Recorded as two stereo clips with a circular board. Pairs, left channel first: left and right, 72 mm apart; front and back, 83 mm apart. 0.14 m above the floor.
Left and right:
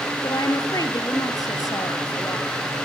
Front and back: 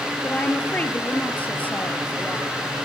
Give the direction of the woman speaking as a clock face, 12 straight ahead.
10 o'clock.